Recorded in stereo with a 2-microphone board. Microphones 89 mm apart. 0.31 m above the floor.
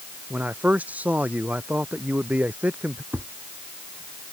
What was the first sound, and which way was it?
A man speaking, 15° right (ahead or behind).